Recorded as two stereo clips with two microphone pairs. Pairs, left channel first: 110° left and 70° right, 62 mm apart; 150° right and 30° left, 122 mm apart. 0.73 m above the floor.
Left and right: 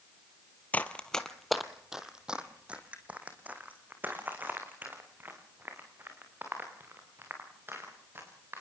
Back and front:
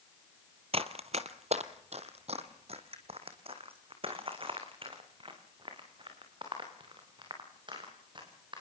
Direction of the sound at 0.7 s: 50° left.